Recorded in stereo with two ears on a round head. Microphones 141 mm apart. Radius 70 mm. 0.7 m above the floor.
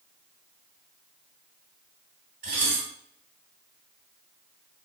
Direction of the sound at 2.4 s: 60° right (ahead or behind).